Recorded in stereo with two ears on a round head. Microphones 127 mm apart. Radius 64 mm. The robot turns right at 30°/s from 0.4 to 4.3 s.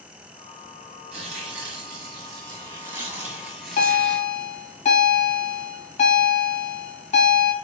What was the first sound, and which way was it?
Tearing paper, 75° right.